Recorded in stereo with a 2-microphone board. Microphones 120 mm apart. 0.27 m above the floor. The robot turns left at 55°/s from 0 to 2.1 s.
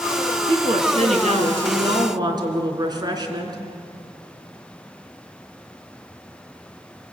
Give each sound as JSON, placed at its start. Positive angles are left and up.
{"t": 0.5, "sound": "a woman speaking", "azimuth_deg": -50, "distance_m": 3.0}